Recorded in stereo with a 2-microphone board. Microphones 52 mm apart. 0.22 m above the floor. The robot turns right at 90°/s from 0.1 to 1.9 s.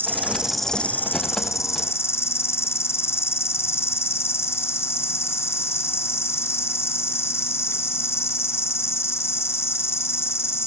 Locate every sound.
0.0 s an insect: 40° right, 1.6 m; by 10.7 s 120° left, 1.6 m